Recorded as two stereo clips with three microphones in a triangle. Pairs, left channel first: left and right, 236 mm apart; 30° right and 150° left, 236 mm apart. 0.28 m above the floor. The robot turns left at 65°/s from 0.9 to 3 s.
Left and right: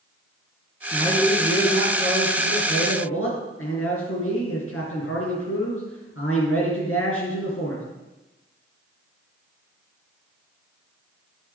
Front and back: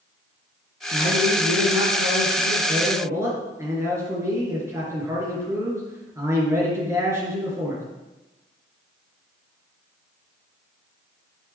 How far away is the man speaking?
About 4 m.